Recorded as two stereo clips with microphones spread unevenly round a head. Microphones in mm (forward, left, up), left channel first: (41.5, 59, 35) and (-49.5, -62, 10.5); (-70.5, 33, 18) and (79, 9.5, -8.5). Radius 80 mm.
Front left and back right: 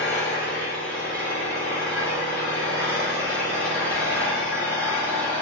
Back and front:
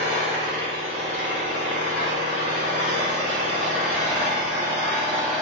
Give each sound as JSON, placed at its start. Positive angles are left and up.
{"t": 0.0, "sound": "an engine running", "azimuth_deg": -50, "distance_m": 0.9}